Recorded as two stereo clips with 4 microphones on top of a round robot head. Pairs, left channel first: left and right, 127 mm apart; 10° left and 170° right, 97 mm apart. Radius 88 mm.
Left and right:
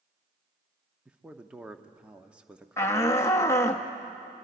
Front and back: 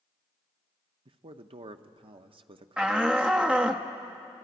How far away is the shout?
About 0.9 m.